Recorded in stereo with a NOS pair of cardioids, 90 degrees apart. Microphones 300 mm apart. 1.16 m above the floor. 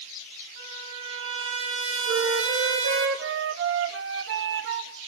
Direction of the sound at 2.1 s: 45° right.